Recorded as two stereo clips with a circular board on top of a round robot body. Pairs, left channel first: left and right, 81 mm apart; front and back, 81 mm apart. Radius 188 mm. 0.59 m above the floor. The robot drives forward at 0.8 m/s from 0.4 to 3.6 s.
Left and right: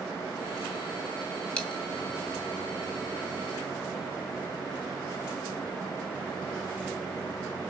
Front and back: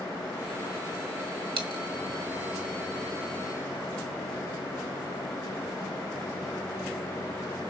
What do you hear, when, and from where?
1.6 s a dropped coin: 165° left, 2 m; by 1.8 s 170° left, 2.5 m